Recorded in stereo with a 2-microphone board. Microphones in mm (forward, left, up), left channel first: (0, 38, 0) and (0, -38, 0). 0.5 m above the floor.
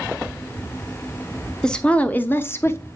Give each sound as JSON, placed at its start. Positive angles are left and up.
{"t": 1.6, "sound": "a woman speaking", "side_deg": 10, "distance_m": 0.9}